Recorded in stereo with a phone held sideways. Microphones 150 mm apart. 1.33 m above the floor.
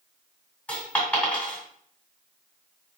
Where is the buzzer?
I don't hear a buzzer.